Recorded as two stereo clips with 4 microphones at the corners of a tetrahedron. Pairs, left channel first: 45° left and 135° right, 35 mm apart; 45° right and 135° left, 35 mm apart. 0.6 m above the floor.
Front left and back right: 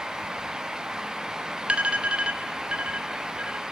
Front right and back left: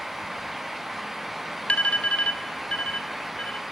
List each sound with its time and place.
1.7 s an alarm: 90° right, 2.5 m